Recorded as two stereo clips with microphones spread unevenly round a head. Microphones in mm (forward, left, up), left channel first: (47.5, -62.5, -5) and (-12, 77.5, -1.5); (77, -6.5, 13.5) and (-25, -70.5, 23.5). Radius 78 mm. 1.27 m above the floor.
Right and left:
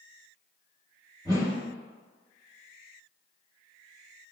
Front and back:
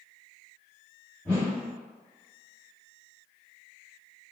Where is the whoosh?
120° left, 0.8 m.